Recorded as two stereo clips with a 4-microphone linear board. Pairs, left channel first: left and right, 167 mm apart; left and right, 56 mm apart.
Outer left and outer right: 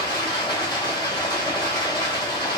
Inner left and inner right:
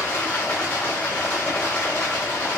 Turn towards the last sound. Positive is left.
turn(degrees=25)  # may be behind; listen again after turning